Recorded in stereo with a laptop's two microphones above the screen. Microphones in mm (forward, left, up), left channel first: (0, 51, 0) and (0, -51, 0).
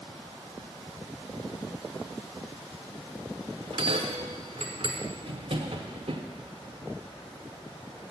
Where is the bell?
65° right (ahead or behind), 1.4 m.